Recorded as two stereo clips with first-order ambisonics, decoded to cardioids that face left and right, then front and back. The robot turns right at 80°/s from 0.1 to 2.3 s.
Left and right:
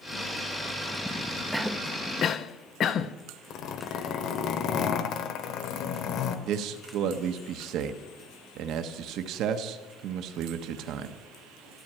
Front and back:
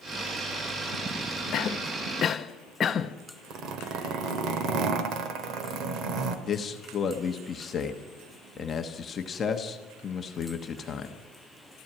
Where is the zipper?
135° left, 1.2 m.